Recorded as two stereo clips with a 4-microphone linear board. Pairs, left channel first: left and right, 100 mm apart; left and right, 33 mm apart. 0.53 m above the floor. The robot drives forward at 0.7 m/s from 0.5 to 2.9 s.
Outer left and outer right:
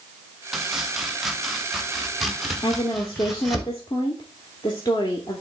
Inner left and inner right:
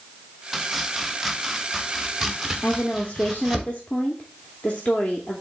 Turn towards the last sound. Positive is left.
turn(degrees=45)  # may be behind; listen again after turning